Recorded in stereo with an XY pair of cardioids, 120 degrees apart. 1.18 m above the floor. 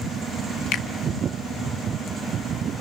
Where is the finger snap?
70° left, 1.9 m.